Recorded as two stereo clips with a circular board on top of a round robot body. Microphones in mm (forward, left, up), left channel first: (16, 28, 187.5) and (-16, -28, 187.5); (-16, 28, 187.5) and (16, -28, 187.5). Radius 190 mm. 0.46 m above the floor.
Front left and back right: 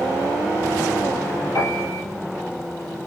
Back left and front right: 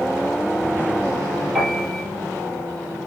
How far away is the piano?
About 5 m.